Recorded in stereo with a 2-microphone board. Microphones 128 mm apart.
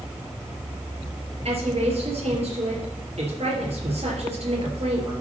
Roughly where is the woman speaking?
Right.